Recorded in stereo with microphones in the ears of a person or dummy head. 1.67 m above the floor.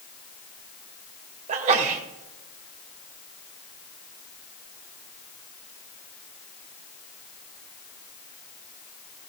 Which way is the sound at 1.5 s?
45° right (ahead or behind).